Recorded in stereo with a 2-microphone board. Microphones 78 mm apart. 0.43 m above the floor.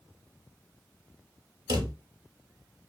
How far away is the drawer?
About 0.6 m.